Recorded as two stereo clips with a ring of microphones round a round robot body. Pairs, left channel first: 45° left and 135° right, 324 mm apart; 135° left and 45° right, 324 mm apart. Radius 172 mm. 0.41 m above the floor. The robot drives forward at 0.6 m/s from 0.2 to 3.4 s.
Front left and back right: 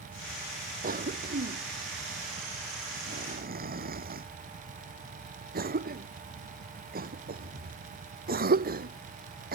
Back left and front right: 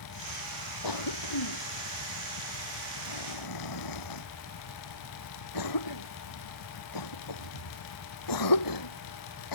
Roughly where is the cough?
Behind.